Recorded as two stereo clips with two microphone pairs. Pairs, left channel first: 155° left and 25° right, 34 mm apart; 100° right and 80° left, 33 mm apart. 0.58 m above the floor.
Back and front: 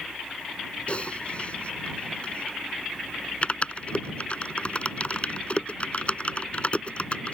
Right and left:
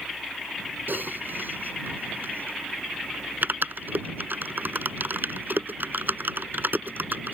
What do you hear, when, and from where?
0.9 s typing on a keyboard: 100° left